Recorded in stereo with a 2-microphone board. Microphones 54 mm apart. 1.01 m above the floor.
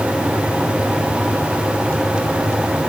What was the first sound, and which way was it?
Only background noise.